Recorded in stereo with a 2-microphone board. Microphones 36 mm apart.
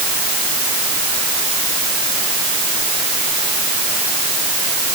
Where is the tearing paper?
No tearing paper in this recording.